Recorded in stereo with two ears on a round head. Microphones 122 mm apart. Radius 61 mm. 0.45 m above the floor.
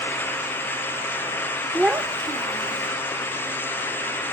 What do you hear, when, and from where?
1.7 s a child speaking: centre (ahead or behind); by 2.9 s 50° right (ahead or behind)